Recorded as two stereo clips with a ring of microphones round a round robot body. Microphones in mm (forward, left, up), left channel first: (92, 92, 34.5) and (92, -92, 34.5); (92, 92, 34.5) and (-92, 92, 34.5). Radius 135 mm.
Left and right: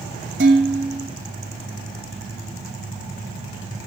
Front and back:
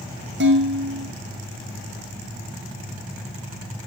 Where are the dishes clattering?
135° right, 2.5 m.